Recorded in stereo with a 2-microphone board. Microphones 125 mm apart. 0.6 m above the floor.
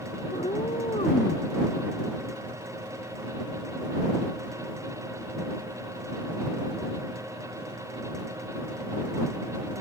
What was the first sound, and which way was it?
A cat meowing, 60° left (ahead or behind).